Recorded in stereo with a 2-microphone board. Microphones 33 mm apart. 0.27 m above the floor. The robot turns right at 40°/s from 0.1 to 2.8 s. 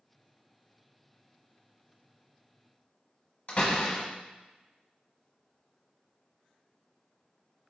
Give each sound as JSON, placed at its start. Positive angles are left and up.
{"t": 3.5, "sound": "a door slam", "side_deg": 40, "distance_m": 1.0}